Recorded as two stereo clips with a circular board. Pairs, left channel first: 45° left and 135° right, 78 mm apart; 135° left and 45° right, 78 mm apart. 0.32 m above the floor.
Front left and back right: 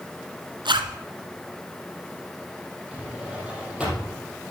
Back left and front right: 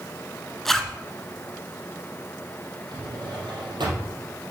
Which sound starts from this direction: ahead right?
A drawer, at 2.9 s.